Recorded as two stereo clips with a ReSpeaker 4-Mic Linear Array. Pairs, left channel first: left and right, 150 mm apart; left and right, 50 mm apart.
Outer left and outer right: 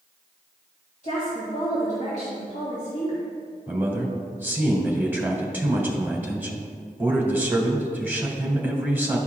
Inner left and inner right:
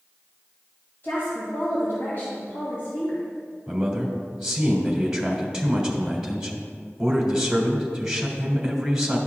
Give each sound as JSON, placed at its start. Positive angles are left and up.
{"t": 1.0, "sound": "a woman speaking", "side_deg": 55, "distance_m": 2.5}
{"t": 3.7, "sound": "a man speaking", "side_deg": -15, "distance_m": 1.4}